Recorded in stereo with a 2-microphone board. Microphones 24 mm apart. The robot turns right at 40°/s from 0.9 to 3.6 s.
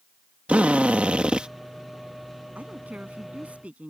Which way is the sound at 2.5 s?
100° right.